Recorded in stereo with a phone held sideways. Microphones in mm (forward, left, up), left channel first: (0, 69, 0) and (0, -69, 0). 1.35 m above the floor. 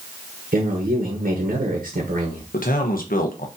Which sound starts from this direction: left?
A man speaking, at 2.5 s.